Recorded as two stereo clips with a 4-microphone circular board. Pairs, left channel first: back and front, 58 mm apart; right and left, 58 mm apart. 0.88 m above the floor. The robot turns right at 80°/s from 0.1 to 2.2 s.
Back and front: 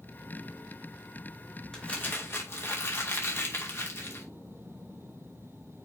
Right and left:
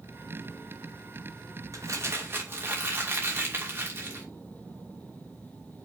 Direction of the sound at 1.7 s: 105° left.